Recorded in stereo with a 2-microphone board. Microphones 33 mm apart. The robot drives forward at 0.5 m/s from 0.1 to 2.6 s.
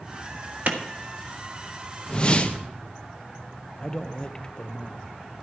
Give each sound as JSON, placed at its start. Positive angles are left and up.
{"t": 0.7, "sound": "a clap", "side_deg": -60, "distance_m": 1.4}
{"t": 2.1, "sound": "a whoosh", "side_deg": 30, "distance_m": 0.9}
{"t": 3.8, "sound": "a man speaking", "side_deg": 25, "distance_m": 0.9}